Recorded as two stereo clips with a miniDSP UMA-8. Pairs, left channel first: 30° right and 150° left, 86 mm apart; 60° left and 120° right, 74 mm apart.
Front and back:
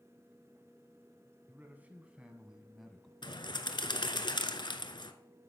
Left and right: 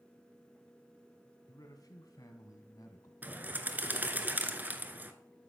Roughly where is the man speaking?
Left.